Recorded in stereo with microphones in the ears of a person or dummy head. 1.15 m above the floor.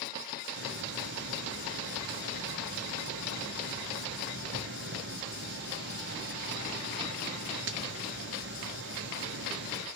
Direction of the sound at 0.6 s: 60° right (ahead or behind).